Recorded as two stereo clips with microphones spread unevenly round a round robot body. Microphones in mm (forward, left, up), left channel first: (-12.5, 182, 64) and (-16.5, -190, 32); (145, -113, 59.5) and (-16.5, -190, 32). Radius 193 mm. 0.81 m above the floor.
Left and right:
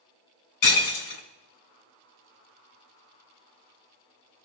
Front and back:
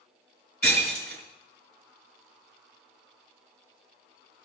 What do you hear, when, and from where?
0.6 s breaking glass: 90° left, 2.5 m